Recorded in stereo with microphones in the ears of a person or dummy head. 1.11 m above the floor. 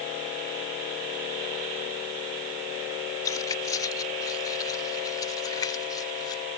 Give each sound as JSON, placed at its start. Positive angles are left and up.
{"t": 3.2, "sound": "keys jangling", "side_deg": 25}